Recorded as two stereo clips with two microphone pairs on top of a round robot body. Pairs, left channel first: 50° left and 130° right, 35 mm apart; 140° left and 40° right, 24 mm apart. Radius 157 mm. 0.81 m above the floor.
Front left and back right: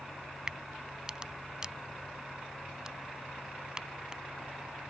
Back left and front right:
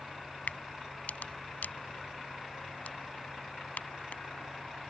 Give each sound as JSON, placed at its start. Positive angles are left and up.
{"t": 0.5, "sound": "a crack", "azimuth_deg": 155}